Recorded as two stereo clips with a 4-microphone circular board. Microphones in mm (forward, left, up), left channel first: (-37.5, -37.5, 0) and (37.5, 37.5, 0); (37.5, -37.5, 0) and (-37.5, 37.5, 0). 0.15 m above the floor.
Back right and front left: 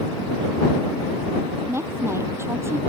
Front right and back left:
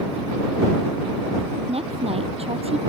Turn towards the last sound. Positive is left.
turn(degrees=110)